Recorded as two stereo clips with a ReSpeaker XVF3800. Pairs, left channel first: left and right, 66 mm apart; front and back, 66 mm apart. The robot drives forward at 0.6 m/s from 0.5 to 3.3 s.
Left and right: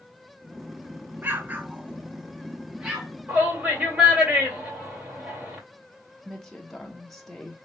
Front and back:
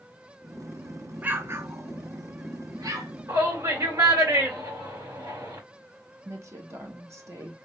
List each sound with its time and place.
1.2 s an explosion: 130° right, 0.5 m; by 3.1 s 170° right, 1.4 m
3.3 s a shout: 155° right, 2.5 m
6.2 s a woman speaking: 175° left, 1.3 m